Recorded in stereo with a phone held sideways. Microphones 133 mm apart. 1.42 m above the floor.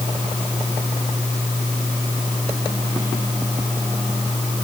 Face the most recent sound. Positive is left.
No sound to turn to.